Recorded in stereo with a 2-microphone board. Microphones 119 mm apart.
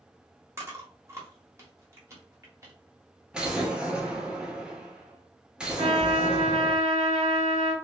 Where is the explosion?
5° right (ahead or behind), 1.0 m.